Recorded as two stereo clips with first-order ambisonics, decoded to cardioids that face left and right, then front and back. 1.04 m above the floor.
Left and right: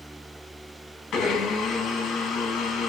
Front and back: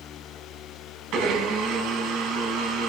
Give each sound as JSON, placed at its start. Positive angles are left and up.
{"t": 1.1, "sound": "a blender", "azimuth_deg": 145, "distance_m": 0.8}